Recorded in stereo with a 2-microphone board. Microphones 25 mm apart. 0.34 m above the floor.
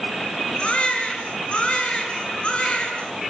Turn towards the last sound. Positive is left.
turn(degrees=45)  # may be behind; listen again after turning